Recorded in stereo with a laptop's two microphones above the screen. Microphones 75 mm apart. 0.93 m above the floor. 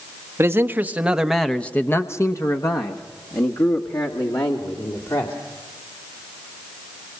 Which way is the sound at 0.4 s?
35° right (ahead or behind).